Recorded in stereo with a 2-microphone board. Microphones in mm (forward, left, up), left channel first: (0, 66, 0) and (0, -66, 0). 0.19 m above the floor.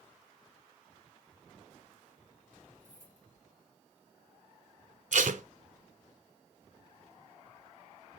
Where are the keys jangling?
75° left (ahead or behind), 3.5 m.